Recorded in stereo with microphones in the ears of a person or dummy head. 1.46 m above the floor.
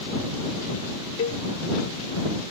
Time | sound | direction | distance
1.2 | a cowbell | 25° left (ahead or behind) | ?